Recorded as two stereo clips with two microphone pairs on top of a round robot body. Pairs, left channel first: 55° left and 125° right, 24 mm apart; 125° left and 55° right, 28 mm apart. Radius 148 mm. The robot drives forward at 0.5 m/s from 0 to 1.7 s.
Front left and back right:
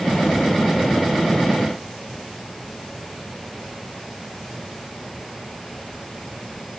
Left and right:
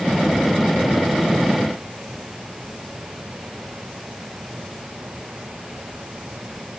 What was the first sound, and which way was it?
Only background noise.